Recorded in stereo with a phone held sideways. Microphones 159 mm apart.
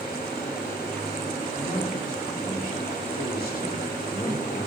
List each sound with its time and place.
0.0 s a fan: 80° left, 4 m
1.5 s a man speaking: 65° left (ahead or behind), 4.5 m